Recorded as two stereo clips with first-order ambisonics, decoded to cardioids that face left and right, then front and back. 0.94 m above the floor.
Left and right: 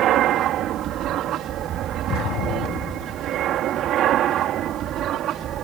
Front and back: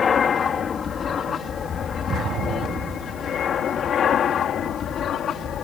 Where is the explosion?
130° left.